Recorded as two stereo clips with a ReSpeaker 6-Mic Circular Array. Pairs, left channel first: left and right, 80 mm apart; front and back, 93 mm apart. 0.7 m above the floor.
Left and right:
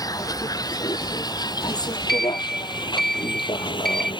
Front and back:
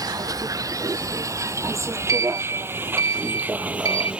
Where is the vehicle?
130° left; by 4.2 s 100° left.